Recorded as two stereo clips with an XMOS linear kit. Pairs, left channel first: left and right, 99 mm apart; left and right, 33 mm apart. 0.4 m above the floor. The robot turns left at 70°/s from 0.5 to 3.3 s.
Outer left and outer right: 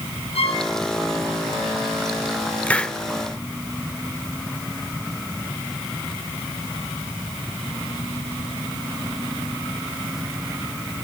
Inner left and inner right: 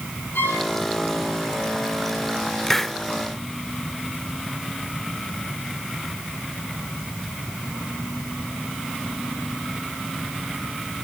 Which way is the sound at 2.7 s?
15° left (ahead or behind).